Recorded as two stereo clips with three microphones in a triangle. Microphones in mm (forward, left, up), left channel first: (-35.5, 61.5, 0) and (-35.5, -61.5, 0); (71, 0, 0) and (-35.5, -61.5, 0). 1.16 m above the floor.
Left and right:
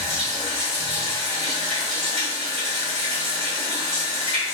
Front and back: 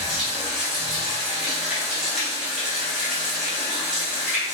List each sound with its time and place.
0.0 s running water: 65° right, 1.4 m